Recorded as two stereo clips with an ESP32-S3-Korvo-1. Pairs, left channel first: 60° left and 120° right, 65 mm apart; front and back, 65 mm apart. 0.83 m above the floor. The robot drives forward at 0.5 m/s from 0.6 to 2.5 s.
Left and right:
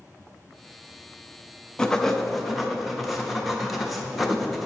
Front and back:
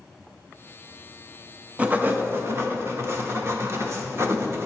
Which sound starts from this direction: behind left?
Writing, at 1.8 s.